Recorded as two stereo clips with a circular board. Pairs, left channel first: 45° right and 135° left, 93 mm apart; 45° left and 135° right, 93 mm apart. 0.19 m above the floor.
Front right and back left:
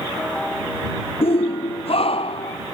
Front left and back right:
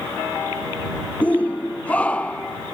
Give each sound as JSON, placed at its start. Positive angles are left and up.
{"t": 1.2, "sound": "a shout", "azimuth_deg": -30}